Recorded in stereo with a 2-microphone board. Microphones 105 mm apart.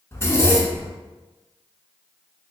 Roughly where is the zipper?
Left.